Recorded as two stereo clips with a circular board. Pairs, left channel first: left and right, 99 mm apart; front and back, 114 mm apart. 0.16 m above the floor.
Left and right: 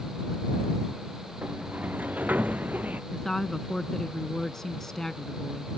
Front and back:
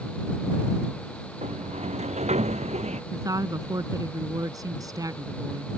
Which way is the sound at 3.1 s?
170° left.